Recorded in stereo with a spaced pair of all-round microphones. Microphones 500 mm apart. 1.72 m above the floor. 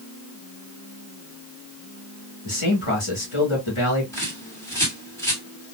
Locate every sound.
2.5 s a man speaking: 70° left (ahead or behind), 2.5 m
4.1 s a bird: 5° left (ahead or behind), 2.0 m